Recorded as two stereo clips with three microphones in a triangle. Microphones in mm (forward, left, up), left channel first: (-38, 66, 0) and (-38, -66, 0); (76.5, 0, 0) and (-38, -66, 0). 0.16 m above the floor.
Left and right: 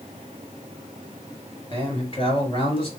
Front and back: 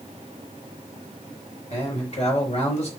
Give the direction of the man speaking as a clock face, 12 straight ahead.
10 o'clock.